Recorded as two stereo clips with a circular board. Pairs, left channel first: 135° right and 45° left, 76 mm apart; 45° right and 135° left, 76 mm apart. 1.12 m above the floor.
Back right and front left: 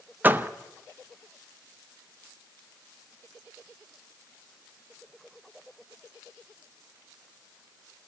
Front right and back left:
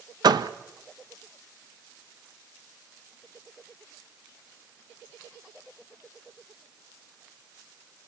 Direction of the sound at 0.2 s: 110° left.